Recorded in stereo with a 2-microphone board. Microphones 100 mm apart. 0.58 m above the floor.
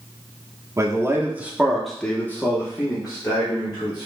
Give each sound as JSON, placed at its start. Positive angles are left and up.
{"t": 0.8, "sound": "a man speaking", "side_deg": -30, "distance_m": 0.8}